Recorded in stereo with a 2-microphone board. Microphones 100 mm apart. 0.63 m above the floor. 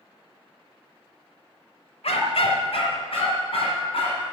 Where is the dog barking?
80° left, 1.1 m; by 4.3 s 70° left (ahead or behind), 3 m.